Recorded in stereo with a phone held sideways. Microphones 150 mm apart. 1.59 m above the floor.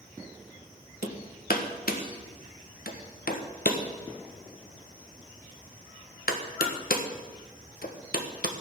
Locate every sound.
1.0 s hammering: 80° left, 1.4 m